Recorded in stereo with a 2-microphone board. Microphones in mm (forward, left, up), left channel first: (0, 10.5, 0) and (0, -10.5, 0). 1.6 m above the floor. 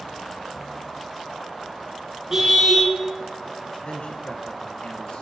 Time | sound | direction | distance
2.3 | a car horn | 25° right (ahead or behind) | 5 m
3.8 | a man speaking | 60° left (ahead or behind) | 1.3 m